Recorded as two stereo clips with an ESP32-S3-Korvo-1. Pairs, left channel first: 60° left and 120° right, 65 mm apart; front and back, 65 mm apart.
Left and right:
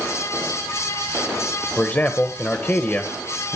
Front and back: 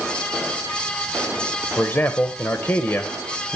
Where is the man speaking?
20° left, 1.0 m.